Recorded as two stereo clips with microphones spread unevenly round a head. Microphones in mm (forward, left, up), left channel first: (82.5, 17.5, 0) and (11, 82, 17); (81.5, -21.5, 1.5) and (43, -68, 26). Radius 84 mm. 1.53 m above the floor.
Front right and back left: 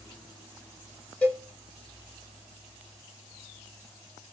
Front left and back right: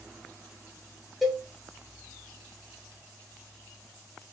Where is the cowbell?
130° right, 0.8 m.